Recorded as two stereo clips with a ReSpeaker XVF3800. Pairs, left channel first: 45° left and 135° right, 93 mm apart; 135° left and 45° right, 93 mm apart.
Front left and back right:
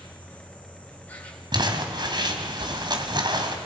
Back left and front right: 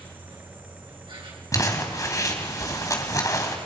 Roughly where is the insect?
Ahead right.